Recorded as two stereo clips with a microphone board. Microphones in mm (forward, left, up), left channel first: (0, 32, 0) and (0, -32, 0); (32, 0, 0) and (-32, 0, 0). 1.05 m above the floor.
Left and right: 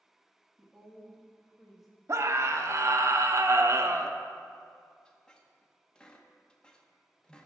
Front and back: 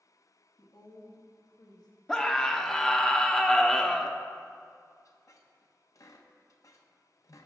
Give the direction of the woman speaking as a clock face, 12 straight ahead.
12 o'clock.